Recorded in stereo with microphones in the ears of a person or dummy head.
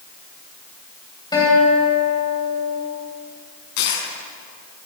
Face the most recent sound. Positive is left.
turn(degrees=60)  # may be behind; listen again after turning